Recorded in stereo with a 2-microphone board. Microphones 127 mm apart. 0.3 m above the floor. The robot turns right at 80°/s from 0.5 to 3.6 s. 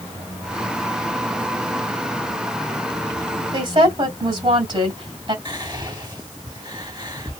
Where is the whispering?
30° right (ahead or behind), 1.9 m.